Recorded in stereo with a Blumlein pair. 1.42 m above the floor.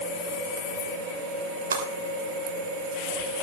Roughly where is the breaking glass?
Right.